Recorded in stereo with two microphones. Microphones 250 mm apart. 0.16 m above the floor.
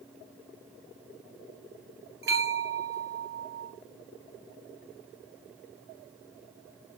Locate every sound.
2.2 s a bell: 50° right (ahead or behind), 1.2 m